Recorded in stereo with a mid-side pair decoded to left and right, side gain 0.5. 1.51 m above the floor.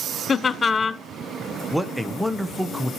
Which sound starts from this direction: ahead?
A man speaking, at 1.7 s.